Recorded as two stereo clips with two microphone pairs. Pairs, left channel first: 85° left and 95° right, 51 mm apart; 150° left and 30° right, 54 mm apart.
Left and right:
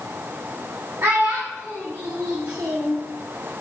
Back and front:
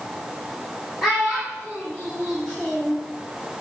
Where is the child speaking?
115° right, 1.5 m.